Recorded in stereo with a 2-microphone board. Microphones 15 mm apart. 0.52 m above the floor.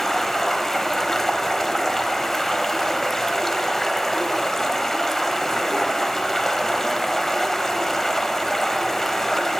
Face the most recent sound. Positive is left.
turn(degrees=25)  # may be behind; listen again after turning